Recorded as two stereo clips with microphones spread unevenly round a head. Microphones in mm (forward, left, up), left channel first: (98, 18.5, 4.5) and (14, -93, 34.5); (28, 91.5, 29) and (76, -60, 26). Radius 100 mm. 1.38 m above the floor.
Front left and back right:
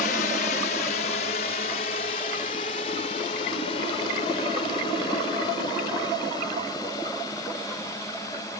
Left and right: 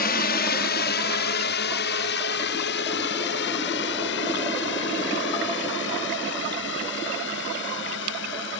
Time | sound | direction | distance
0.0 | a drone | 90° left | ?